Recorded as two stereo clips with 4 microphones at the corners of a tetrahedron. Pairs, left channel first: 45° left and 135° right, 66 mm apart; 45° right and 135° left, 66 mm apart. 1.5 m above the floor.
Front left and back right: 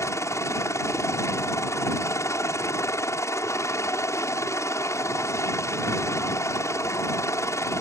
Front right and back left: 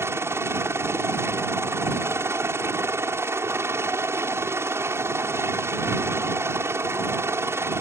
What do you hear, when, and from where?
0.0 s a helicopter: 90° left